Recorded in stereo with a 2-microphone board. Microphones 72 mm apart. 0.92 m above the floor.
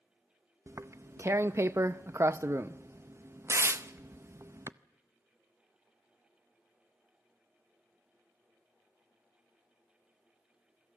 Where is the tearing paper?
40° right (ahead or behind), 0.5 m.